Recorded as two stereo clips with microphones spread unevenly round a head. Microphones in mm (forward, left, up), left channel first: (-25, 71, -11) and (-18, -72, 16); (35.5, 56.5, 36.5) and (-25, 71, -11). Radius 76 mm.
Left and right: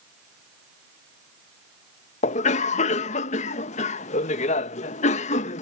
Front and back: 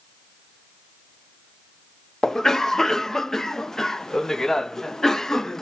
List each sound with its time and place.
2.2 s a cough: 95° left